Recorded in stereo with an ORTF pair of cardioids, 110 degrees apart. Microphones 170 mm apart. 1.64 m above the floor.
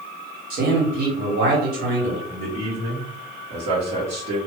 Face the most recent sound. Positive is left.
turn(degrees=-55)